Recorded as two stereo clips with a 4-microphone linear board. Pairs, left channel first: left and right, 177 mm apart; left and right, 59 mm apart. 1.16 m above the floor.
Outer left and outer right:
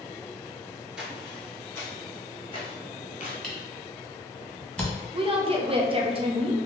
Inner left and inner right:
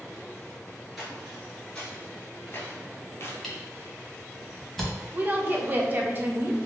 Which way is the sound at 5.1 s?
30° right (ahead or behind).